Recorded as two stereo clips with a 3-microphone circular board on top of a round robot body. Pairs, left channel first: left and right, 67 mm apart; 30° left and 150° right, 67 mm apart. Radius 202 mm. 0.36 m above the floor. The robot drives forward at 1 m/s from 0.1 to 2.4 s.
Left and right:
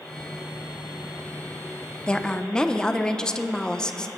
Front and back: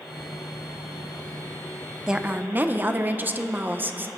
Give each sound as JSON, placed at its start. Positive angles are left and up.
{"t": 2.1, "sound": "a woman speaking", "azimuth_deg": 145, "distance_m": 0.8}